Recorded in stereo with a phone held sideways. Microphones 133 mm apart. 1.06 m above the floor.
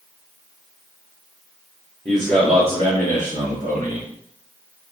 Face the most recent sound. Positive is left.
turn(degrees=-85)